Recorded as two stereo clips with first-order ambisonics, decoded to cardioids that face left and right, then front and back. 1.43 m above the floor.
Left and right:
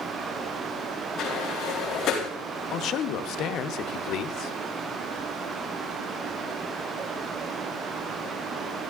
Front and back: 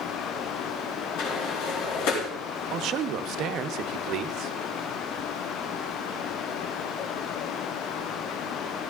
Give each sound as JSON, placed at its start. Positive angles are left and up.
{"t": 1.2, "sound": "a sliding door", "azimuth_deg": 30, "distance_m": 3.5}
{"t": 2.7, "sound": "a man speaking", "azimuth_deg": 135, "distance_m": 0.8}